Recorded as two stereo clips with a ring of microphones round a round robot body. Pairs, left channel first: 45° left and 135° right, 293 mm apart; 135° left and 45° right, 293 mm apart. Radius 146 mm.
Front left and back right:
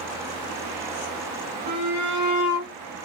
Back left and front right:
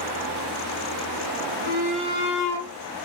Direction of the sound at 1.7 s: 100° right.